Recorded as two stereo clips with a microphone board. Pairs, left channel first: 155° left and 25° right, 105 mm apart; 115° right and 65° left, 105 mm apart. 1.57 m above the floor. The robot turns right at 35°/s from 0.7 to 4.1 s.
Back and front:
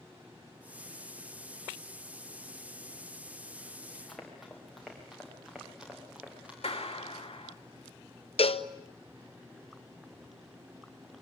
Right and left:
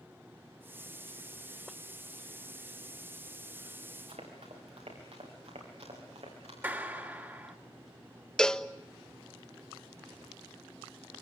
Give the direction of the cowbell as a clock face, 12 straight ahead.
6 o'clock.